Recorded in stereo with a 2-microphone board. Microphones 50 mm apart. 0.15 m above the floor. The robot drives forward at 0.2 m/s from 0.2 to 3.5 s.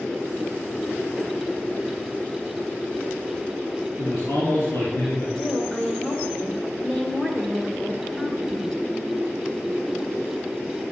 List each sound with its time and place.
4.0 s a man speaking: 50° left (ahead or behind), 4.5 m
5.3 s a woman speaking: 15° left (ahead or behind), 2.5 m